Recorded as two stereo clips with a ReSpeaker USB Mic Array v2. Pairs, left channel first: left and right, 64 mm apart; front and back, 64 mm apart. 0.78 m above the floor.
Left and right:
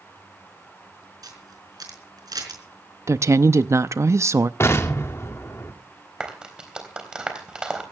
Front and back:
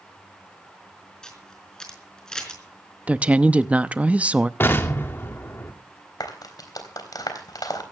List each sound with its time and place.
1.2 s a camera shutter: 80° right, 4.5 m
3.1 s a woman speaking: 115° right, 0.7 m
4.6 s an explosion: 50° left, 2 m
6.2 s a clap: 15° right, 3.5 m